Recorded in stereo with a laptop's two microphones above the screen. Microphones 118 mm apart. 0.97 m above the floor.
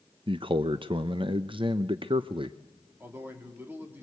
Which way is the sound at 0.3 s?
45° right (ahead or behind).